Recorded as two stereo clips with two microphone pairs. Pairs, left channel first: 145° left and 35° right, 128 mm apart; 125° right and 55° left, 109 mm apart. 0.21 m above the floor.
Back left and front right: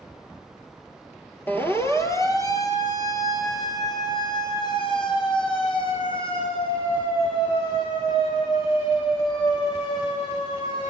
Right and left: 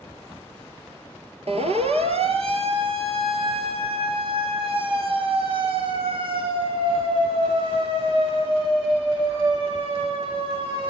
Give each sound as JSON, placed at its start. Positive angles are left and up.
{"t": 1.5, "sound": "a siren", "azimuth_deg": 70, "distance_m": 3.0}